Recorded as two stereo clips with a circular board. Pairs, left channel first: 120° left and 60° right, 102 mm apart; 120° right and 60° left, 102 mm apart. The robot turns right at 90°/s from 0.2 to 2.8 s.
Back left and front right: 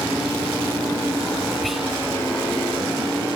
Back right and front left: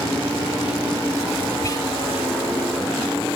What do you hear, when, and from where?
1.6 s whispering: 155° right, 1.6 m; by 1.9 s 130° right, 1.6 m